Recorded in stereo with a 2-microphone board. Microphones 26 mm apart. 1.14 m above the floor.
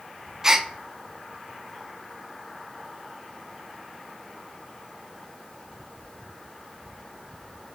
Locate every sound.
0.4 s a gasp: 20° right (ahead or behind), 0.6 m